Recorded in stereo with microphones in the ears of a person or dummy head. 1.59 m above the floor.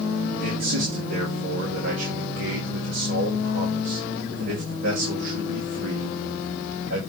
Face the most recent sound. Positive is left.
turn(degrees=-80)